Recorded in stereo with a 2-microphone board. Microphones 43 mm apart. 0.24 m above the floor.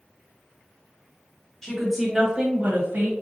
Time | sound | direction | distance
1.6 | a woman speaking | 10° left (ahead or behind) | 1.3 m